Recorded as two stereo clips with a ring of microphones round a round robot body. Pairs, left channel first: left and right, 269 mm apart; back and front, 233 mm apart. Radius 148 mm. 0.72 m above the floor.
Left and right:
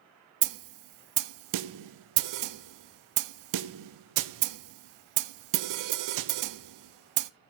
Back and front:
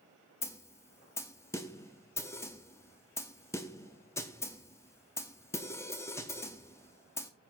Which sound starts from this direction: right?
A snare drum, at 0.4 s.